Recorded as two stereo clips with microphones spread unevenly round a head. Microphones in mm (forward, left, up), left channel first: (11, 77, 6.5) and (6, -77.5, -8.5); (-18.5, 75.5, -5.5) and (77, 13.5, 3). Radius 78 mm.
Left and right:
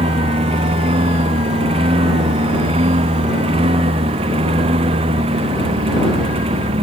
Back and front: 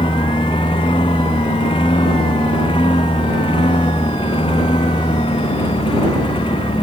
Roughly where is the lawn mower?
Behind right.